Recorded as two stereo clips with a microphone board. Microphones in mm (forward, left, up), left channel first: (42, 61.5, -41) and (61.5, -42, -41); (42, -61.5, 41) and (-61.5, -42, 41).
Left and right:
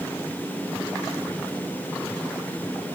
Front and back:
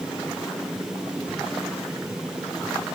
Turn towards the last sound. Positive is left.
No sound to turn to.